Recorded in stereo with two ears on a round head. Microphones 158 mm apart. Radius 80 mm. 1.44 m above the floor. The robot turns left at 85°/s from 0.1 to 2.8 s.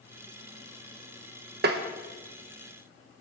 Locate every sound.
1.6 s tapping: 55° right (ahead or behind), 1.0 m; by 1.8 s 70° right (ahead or behind), 1.0 m